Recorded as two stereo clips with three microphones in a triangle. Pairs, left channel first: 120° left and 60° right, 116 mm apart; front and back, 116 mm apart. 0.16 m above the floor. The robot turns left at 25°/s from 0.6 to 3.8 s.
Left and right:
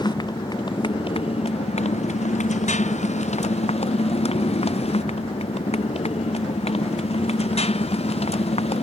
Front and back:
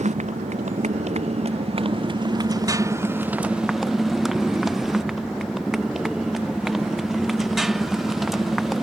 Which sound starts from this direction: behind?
A motorcycle, at 0.0 s.